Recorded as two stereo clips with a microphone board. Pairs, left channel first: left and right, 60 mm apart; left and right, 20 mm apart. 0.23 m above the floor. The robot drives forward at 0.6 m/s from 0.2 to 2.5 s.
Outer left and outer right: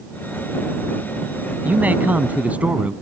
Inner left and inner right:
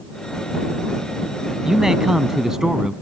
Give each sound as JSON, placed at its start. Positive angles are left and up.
{"t": 1.6, "sound": "a man speaking", "side_deg": -30}